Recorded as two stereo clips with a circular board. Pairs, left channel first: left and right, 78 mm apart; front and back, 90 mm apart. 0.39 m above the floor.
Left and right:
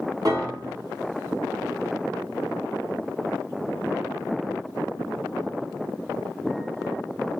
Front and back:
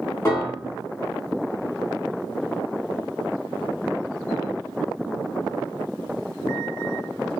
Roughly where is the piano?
Ahead right.